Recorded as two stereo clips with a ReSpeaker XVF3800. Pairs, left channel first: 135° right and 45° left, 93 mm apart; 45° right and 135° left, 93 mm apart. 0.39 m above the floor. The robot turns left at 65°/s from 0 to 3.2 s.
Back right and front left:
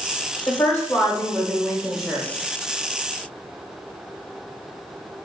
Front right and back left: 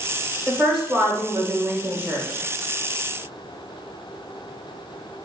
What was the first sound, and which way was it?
A woman speaking, 120° right.